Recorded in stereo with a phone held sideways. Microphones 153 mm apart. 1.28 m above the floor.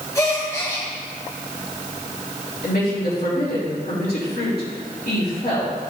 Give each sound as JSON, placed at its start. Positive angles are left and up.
{"t": 0.1, "sound": "a gasp", "side_deg": 20, "distance_m": 1.9}
{"t": 2.6, "sound": "a woman speaking", "side_deg": 80, "distance_m": 3.5}